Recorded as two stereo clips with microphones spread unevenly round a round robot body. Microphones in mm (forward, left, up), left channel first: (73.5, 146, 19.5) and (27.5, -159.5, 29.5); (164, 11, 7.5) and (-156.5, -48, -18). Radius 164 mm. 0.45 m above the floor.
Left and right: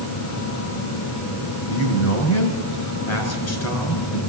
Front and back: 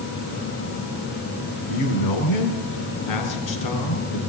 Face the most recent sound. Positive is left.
turn(degrees=45)